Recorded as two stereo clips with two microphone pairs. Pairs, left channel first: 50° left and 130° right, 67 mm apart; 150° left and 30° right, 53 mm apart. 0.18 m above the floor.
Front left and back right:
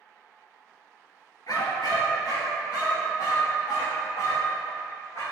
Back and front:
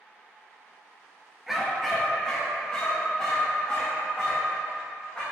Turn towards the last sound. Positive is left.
turn(degrees=80)